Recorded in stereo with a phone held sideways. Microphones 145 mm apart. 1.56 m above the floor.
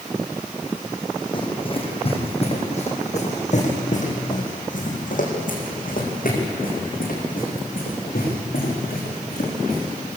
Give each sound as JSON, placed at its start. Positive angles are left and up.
{"t": 1.3, "sound": "running footsteps", "side_deg": 35, "distance_m": 4.5}